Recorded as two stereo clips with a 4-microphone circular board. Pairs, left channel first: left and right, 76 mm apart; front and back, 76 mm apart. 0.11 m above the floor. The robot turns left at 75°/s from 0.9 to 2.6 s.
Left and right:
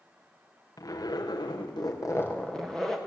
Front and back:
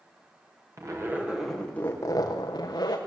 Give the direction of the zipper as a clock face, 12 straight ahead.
8 o'clock.